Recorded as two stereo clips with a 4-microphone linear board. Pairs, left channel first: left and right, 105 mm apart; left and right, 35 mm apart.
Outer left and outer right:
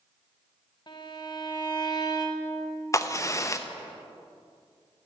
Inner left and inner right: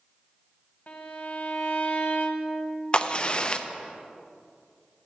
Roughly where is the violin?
Left.